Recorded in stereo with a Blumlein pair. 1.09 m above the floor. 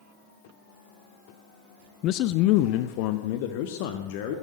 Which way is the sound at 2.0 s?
35° left.